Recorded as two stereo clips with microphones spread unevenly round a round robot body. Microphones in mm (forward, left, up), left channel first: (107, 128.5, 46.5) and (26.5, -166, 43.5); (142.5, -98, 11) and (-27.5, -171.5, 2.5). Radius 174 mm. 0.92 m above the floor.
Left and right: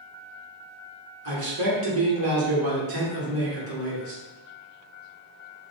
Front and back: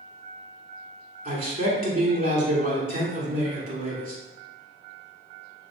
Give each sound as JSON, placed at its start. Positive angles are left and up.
{"t": 1.2, "sound": "a man speaking", "azimuth_deg": -115, "distance_m": 1.7}